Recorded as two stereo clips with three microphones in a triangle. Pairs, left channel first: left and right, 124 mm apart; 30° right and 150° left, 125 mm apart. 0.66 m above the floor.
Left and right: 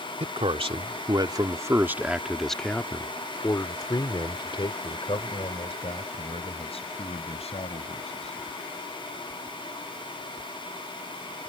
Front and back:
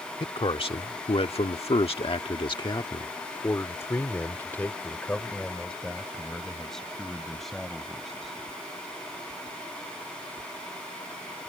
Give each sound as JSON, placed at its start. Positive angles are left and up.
{"t": 0.2, "sound": "a man speaking", "azimuth_deg": -70}